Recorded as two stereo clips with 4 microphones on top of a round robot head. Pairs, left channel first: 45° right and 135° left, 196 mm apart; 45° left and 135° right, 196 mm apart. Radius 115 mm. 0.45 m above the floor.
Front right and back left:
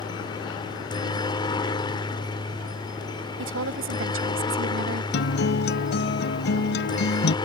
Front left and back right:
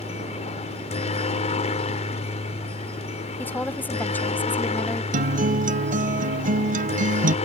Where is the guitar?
85° right.